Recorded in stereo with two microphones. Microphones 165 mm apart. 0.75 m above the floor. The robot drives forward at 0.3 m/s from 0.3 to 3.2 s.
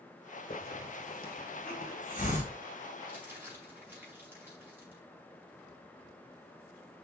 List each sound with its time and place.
0.5 s a hiss: 65° left (ahead or behind), 1.6 m; by 2.5 s 50° left (ahead or behind), 1.9 m
3.1 s crumpling: 15° right (ahead or behind), 4 m